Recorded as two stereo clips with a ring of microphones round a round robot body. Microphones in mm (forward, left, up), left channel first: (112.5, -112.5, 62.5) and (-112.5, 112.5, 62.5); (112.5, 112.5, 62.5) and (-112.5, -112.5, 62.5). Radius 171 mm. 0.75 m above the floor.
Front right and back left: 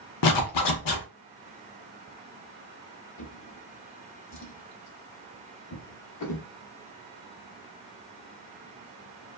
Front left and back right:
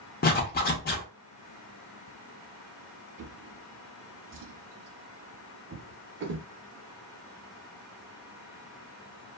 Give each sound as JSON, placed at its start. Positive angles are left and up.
{"t": 0.2, "sound": "a zipper", "azimuth_deg": -15, "distance_m": 0.5}
{"t": 3.2, "sound": "a drawer", "azimuth_deg": -85, "distance_m": 0.6}